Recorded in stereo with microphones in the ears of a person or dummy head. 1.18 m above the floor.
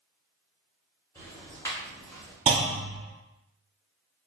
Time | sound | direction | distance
1.1 | ticking | 15° left (ahead or behind) | 0.9 m
2.5 | a clunk | 25° right (ahead or behind) | 0.8 m